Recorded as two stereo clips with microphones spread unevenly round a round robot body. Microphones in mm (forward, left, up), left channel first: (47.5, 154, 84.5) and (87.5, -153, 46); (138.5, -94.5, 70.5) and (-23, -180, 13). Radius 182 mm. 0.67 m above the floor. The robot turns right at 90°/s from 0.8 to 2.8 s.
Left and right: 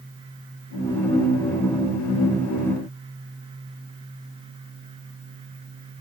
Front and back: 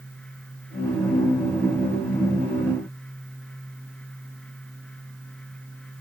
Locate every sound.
Only background noise.